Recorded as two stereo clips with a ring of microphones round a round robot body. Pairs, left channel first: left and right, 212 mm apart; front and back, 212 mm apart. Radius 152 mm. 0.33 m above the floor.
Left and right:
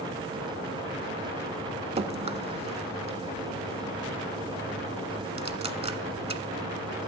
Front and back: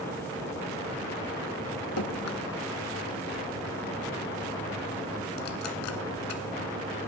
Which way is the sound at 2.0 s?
25° right.